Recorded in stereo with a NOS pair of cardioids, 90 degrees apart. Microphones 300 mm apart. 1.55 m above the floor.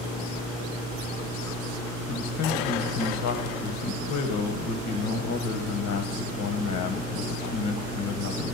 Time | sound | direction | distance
2.1 | a man speaking | 70° left | 1.2 m